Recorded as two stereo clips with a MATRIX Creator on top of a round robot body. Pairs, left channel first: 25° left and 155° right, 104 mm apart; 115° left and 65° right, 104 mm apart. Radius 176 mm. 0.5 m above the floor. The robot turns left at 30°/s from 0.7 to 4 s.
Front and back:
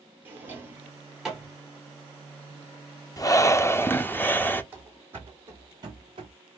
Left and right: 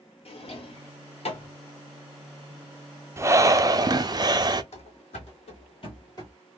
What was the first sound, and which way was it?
A drawer, 130° left.